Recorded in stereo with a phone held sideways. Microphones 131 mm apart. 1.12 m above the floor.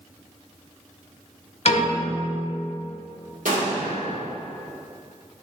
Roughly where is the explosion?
Right.